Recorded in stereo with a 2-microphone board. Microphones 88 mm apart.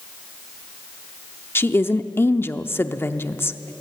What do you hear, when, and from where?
1.6 s a woman speaking: 25° left (ahead or behind), 0.7 m